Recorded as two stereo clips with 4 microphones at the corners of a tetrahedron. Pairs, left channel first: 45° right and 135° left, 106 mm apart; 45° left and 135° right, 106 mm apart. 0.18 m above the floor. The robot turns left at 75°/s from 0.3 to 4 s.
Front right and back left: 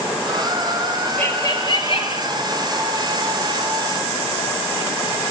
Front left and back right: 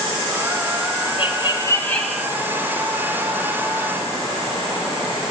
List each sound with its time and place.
1.2 s laughter: 25° left, 2.5 m; by 2.3 s 55° right, 2.5 m